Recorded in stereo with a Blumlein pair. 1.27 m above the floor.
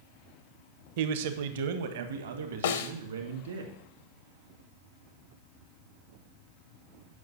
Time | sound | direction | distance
1.0 | a man speaking | 50° right | 0.9 m
2.6 | a snare drum | 60° left | 0.8 m